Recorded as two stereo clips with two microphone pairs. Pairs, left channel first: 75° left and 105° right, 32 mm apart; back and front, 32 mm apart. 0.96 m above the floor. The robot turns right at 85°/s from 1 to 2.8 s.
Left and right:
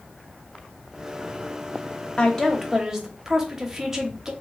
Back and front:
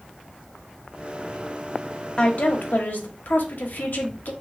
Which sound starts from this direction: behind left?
A woman speaking, at 2.2 s.